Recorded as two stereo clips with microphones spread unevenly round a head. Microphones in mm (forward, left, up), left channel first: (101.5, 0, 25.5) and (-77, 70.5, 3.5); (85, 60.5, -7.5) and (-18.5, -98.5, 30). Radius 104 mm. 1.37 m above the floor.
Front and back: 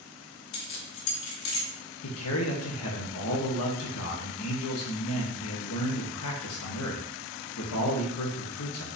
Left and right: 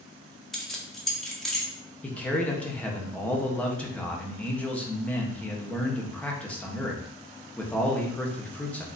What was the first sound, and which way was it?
Keys jangling, 35° right.